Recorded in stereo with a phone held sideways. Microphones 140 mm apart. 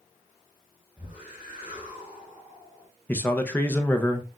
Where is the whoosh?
35° right (ahead or behind), 2.5 m.